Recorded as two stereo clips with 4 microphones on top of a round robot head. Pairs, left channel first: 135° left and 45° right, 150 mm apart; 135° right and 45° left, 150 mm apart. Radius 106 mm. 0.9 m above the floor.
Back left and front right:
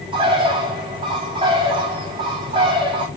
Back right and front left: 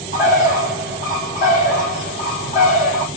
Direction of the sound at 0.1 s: 100° right.